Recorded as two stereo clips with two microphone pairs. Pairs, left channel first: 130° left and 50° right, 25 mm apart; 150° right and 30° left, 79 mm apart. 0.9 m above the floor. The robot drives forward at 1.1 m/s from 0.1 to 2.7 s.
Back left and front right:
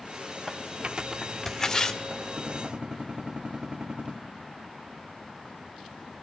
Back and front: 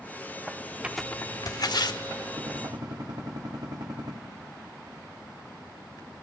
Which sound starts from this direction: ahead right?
Tearing paper, at 0.8 s.